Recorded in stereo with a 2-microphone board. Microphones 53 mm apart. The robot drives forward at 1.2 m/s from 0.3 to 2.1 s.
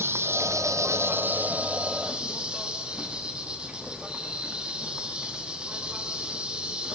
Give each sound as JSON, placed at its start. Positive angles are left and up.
{"t": 0.0, "sound": "an insect", "side_deg": -55, "distance_m": 0.8}